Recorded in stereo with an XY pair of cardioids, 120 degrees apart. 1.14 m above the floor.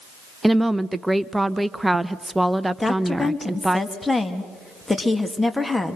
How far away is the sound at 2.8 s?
About 2 m.